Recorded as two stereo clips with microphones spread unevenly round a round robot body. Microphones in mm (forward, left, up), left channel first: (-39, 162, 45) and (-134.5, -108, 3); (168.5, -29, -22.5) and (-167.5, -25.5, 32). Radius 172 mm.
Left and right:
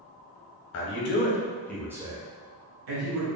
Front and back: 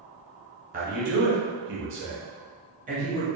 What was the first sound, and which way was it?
A man speaking, 110° left.